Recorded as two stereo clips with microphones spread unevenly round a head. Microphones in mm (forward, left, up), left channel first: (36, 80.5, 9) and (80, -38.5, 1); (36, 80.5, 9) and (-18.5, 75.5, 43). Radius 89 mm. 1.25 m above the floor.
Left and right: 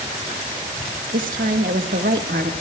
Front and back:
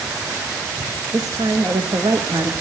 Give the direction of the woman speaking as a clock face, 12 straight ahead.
4 o'clock.